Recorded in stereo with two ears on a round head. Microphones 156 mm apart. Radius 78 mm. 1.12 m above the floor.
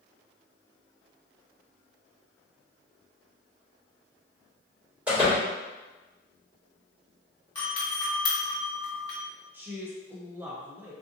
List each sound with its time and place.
5.1 s a door slam: 10° right (ahead or behind), 1.9 m
7.5 s a doorbell: 25° left (ahead or behind), 1.1 m
9.5 s a woman speaking: 10° right (ahead or behind), 0.5 m